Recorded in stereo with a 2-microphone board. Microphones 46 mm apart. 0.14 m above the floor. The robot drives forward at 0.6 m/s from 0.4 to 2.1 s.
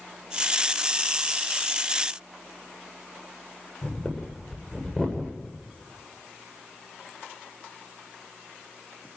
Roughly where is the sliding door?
No sliding door in this recording.